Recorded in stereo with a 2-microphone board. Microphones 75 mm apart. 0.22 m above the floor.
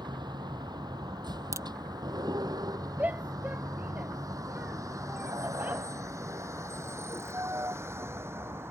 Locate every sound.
0.0 s a vehicle: 75° right (ahead or behind); by 8.7 s 35° right (ahead or behind)
1.5 s a crack: 40° right (ahead or behind)
3.0 s a shout: 20° right (ahead or behind)